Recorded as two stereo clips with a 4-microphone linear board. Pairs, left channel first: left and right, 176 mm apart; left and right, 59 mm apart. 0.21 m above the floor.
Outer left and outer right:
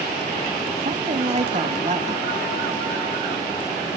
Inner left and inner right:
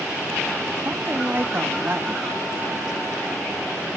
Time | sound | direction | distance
0.8 | a woman speaking | 40° right (ahead or behind) | 1.2 m